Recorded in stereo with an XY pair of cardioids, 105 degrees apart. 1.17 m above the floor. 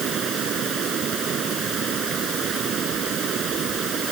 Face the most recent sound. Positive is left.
turn(degrees=-55)